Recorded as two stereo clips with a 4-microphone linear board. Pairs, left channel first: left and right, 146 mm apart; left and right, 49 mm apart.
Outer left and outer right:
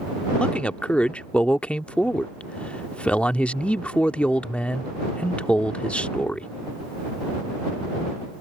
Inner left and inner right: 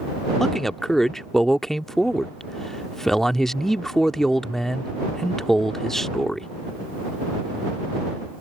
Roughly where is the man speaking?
Centre.